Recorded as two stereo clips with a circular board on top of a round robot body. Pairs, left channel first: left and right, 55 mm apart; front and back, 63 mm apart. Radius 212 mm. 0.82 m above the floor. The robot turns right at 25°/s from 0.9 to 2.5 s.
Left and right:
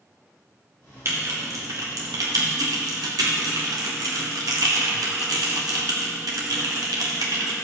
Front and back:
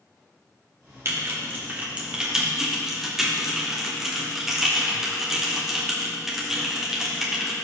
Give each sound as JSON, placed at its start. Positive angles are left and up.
{"t": 1.1, "sound": "typing on a keyboard", "azimuth_deg": -130, "distance_m": 1.3}